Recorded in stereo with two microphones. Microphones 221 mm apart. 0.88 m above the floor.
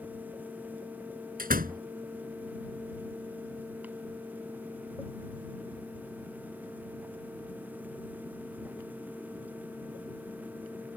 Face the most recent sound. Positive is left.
turn(degrees=-40)  # may be behind; listen again after turning